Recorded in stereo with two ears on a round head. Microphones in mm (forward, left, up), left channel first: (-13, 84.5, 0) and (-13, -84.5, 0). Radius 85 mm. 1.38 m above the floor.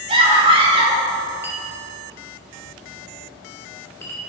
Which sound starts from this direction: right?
A scream, at 0.1 s.